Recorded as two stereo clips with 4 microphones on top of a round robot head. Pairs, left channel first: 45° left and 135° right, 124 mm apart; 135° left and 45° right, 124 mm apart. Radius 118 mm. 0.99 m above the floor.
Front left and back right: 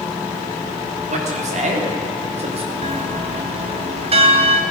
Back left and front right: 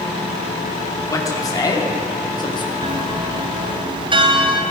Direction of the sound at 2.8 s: 95° right.